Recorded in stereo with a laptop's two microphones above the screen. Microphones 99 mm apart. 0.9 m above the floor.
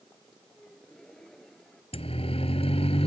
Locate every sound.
0.6 s a gasp: 5° left (ahead or behind)
1.9 s a siren: 70° left (ahead or behind); by 3.1 s 75° left (ahead or behind)